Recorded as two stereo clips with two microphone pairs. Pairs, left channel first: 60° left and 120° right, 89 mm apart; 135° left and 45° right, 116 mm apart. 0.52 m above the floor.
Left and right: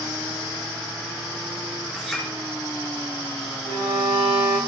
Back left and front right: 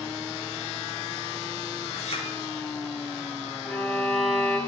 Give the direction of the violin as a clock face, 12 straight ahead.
5 o'clock.